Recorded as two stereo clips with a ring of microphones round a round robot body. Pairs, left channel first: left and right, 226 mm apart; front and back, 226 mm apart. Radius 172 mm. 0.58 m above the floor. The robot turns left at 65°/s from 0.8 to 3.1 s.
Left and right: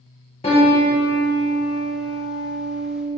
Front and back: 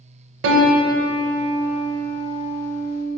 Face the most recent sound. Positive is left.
turn(degrees=15)